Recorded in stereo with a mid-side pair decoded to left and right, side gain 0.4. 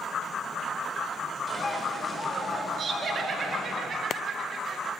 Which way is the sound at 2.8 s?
55° right.